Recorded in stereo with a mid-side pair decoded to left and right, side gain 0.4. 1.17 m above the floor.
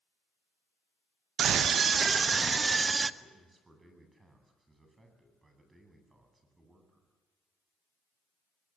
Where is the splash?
No splash in this recording.